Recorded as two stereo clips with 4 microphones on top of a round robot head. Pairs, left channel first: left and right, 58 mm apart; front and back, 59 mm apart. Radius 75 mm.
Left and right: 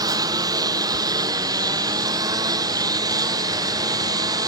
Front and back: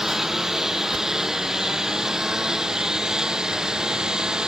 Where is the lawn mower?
95° right; by 4.5 s 100° right.